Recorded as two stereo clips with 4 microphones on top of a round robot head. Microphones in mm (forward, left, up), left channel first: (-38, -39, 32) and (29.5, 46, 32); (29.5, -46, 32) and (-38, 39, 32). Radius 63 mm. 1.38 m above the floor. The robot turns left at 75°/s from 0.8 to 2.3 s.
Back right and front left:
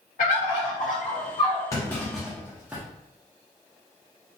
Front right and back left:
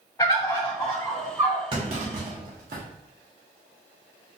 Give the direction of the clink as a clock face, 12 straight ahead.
No clink in this recording.